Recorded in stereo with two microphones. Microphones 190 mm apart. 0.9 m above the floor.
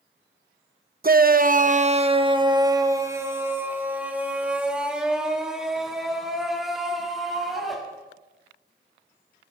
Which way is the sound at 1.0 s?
45° right (ahead or behind).